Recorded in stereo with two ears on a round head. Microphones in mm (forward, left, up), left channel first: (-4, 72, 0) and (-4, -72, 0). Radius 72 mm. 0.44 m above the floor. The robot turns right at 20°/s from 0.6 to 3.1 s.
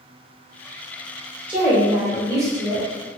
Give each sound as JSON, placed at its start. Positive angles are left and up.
{"t": 1.5, "sound": "a woman speaking", "side_deg": -10, "distance_m": 1.9}